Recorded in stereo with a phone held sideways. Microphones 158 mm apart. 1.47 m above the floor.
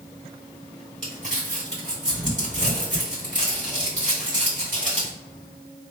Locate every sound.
1.0 s crumpling: 50° right (ahead or behind), 2.0 m